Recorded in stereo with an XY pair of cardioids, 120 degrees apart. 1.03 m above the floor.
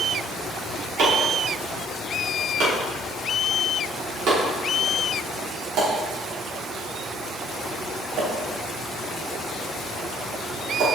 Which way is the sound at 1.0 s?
70° right.